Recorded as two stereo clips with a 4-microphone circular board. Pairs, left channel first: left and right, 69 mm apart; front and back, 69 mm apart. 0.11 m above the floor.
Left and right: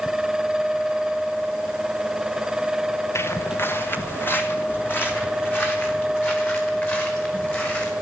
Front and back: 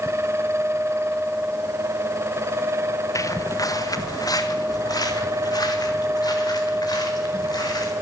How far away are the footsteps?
About 1.1 m.